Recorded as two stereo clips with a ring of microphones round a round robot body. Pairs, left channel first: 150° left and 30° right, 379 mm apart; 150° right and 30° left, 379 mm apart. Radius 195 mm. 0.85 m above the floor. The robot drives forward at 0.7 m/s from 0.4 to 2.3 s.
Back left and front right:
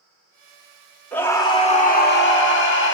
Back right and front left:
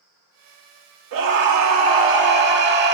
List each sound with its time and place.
1.1 s a scream: 65° left, 2.0 m; by 3.0 s 90° left, 1.8 m